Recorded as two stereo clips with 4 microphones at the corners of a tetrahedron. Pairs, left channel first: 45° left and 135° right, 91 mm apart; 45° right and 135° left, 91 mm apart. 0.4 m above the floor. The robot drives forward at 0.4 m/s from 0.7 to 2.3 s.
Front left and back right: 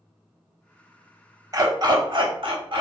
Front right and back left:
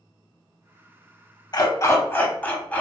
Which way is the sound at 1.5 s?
85° right.